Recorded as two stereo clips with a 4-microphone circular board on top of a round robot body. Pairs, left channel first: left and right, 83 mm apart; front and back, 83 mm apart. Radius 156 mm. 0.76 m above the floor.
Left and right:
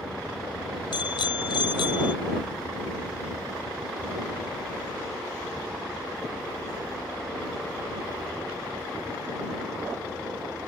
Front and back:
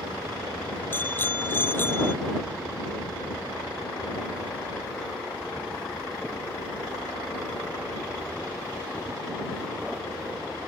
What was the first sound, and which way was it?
A bicycle bell, 65° left.